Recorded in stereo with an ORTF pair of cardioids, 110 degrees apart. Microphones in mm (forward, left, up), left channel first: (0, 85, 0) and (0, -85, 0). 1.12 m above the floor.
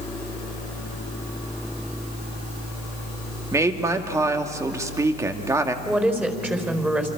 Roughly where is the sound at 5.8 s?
Ahead.